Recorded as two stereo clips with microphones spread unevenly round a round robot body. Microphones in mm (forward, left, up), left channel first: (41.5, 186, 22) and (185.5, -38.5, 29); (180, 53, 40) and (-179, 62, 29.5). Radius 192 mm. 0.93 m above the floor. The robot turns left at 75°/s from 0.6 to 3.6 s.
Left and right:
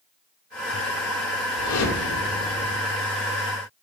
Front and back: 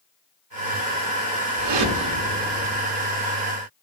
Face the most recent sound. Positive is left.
turn(degrees=40)